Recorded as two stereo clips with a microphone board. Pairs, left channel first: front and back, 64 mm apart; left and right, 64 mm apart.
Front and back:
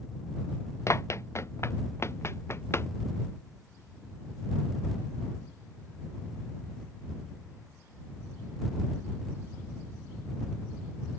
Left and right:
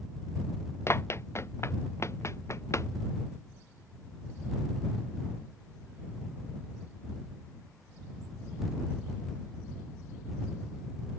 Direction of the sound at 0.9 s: 45° left.